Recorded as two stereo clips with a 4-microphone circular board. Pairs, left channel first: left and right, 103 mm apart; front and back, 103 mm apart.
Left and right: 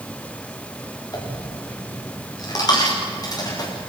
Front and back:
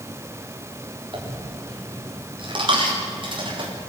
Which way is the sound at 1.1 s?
145° left.